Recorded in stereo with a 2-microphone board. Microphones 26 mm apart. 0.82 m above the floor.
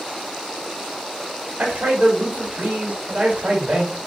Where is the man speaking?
50° right (ahead or behind), 1.1 m.